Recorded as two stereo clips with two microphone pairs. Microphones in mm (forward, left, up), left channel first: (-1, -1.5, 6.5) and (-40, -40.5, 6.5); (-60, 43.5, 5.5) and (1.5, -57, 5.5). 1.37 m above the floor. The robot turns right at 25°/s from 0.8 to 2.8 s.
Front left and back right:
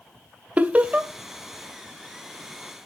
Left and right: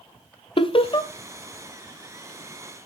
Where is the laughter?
165° left, 0.7 m; by 1.1 s 170° left, 0.7 m.